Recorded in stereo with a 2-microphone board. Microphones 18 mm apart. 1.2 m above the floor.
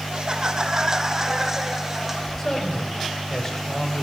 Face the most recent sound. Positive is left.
turn(degrees=15)  # may be behind; listen again after turning